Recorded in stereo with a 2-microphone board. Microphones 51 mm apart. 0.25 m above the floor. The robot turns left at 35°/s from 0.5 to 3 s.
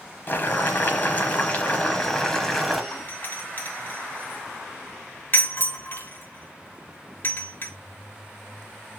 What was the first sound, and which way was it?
Boiling, 80° left.